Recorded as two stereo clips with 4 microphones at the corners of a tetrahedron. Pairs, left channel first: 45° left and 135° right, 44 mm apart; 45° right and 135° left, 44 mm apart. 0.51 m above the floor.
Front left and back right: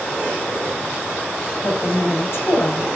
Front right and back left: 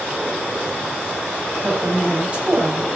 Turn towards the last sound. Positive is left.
turn(degrees=70)